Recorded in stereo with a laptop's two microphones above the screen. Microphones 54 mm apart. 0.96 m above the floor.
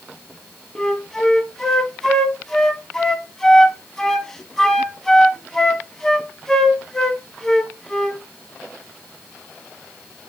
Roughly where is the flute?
Centre.